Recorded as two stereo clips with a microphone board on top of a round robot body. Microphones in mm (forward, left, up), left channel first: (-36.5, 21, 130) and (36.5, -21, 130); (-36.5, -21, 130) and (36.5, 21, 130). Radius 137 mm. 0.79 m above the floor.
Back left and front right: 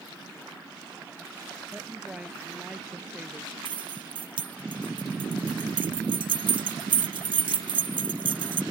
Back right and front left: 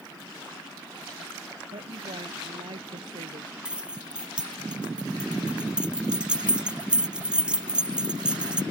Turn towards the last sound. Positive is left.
turn(degrees=-50)